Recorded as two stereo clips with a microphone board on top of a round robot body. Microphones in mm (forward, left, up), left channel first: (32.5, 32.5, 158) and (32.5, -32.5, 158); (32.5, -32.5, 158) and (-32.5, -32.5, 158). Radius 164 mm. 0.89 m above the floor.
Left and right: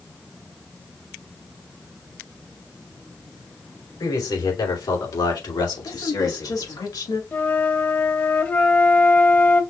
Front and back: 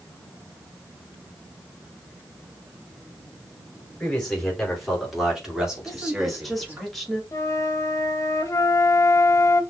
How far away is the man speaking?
About 3 m.